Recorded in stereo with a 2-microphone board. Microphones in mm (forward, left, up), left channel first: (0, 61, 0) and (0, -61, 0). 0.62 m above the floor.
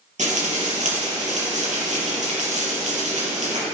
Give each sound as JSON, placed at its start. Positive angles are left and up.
{"t": 0.2, "sound": "frying", "side_deg": -80, "distance_m": 4.0}